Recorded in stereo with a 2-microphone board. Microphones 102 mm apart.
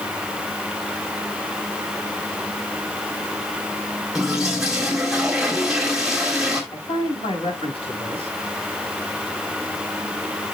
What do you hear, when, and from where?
4.2 s a toilet flushing: 5° right (ahead or behind), 3 m
6.7 s a man speaking: 60° left (ahead or behind), 5 m